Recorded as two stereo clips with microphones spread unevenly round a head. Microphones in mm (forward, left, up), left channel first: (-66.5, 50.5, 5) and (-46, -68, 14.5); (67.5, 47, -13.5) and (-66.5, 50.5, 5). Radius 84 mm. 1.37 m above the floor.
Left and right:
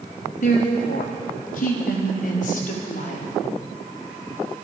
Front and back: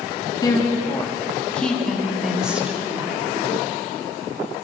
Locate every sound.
0.4 s a woman speaking: 60° left, 3 m; by 3.3 s 105° left, 4.5 m